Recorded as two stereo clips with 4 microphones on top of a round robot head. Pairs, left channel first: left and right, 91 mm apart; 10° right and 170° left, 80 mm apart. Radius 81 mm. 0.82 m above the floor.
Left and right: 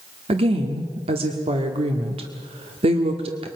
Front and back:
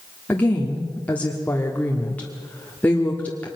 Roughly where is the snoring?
I don't hear snoring.